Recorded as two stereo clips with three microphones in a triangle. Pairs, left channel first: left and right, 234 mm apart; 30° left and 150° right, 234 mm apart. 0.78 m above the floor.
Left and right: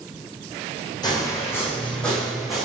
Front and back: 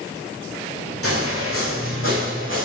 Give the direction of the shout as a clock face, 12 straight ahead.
No shout in this recording.